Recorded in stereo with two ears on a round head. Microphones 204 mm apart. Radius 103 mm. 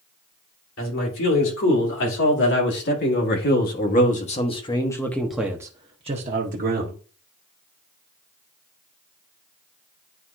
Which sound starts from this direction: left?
A man speaking, at 0.8 s.